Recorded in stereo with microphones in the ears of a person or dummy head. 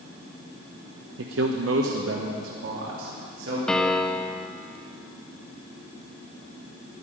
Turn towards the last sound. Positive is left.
turn(degrees=0)  # may be behind; listen again after turning